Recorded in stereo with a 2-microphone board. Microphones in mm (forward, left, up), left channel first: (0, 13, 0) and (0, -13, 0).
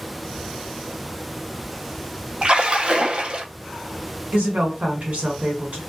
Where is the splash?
45° right (ahead or behind), 0.5 m.